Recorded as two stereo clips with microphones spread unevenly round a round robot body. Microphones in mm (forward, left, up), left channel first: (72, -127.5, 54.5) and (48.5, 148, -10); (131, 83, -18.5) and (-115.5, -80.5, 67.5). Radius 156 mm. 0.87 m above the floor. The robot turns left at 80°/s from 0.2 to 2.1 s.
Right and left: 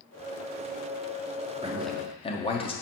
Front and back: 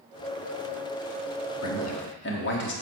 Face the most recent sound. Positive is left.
turn(degrees=-10)